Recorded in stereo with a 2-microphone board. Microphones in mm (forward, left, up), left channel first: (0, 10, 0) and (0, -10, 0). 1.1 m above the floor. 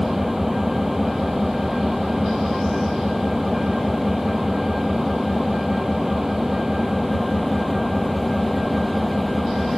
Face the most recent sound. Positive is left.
turn(degrees=-15)  # may be behind; listen again after turning